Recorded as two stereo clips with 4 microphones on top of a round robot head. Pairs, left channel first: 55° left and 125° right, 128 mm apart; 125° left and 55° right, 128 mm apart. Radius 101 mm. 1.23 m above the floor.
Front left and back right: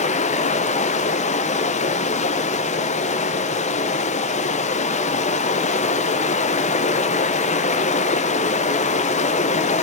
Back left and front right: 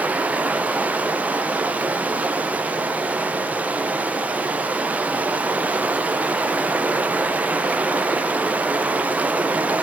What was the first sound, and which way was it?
Running water, 25° left.